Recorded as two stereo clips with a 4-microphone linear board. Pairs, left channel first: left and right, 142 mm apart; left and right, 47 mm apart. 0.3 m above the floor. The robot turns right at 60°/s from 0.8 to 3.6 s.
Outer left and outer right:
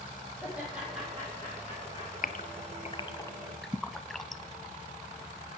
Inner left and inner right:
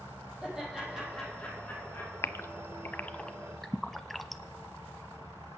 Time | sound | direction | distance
0.4 | laughter | 10° right (ahead or behind) | 9.5 m
2.2 | a gasp | 70° left (ahead or behind) | 0.6 m